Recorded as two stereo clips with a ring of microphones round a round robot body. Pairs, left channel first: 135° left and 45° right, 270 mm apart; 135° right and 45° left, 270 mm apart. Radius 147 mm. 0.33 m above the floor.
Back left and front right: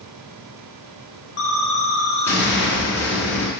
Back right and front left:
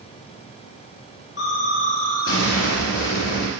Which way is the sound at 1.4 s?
175° left.